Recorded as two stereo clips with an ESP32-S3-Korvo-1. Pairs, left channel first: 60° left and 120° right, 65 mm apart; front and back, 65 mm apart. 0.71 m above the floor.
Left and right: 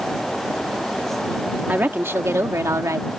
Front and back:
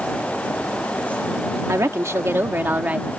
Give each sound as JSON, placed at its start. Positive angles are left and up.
{"t": 1.7, "sound": "a woman speaking", "azimuth_deg": -170}